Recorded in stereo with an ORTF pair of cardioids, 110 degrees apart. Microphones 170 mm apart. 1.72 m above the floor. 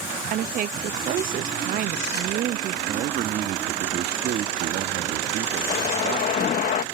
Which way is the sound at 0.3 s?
55° right.